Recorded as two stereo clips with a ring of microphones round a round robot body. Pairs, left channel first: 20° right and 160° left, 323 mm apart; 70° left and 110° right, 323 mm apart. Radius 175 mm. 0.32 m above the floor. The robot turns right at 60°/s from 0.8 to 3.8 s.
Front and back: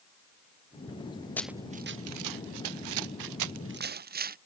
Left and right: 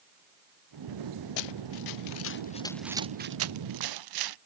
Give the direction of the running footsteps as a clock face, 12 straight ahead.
10 o'clock.